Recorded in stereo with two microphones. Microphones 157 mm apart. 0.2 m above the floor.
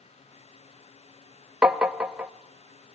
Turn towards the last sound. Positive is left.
turn(degrees=-5)  # may be behind; listen again after turning